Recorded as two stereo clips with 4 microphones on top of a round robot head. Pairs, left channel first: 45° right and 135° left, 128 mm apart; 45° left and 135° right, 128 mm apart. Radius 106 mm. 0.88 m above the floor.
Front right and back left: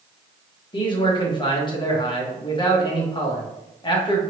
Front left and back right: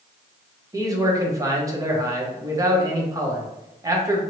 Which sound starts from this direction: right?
A man speaking, at 0.7 s.